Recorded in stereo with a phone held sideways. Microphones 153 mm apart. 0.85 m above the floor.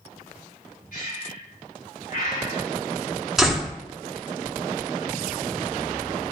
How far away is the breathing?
About 2.5 m.